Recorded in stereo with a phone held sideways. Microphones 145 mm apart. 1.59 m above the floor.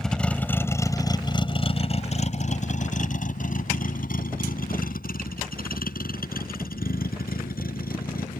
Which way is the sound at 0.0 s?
Centre (ahead or behind).